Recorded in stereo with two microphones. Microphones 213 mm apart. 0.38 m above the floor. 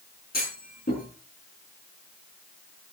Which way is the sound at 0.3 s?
45° left (ahead or behind).